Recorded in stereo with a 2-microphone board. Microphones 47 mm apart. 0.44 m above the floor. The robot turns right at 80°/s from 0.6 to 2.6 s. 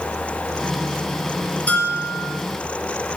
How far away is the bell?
About 5 m.